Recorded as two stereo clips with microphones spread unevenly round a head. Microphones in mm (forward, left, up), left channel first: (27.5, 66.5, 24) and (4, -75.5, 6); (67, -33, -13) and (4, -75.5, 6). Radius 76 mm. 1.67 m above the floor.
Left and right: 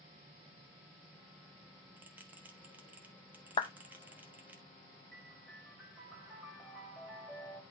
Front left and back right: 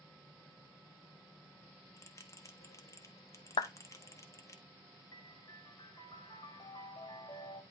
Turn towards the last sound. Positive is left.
turn(degrees=0)